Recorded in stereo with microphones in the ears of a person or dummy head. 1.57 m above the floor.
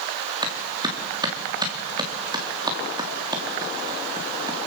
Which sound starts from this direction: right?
A clap, at 0.4 s.